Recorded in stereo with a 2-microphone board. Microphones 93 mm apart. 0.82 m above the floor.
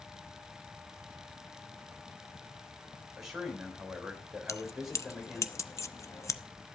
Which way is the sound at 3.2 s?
5° right (ahead or behind).